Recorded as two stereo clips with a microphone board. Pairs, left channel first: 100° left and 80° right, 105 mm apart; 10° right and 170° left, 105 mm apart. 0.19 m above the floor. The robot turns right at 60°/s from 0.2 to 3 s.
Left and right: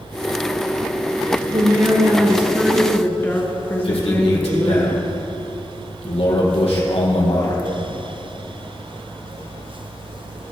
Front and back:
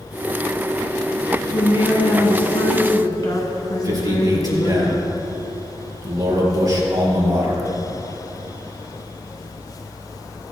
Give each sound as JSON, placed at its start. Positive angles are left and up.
{"t": 1.5, "sound": "a woman speaking", "azimuth_deg": -55, "distance_m": 1.7}
{"t": 3.8, "sound": "a man speaking", "azimuth_deg": 115, "distance_m": 4.0}